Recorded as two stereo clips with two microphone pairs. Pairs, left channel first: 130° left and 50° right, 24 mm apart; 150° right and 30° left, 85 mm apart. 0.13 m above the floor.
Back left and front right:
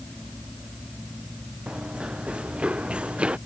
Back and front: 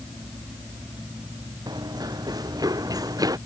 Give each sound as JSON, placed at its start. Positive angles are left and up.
{"t": 1.7, "sound": "running footsteps", "azimuth_deg": -10}